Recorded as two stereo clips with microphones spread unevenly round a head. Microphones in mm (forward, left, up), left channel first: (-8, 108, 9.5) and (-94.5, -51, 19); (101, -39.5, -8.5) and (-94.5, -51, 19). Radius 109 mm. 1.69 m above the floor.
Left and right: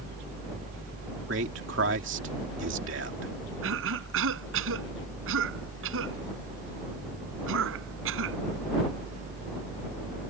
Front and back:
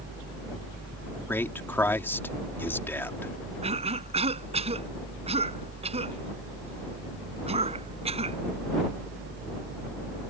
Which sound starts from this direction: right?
A man speaking, at 1.3 s.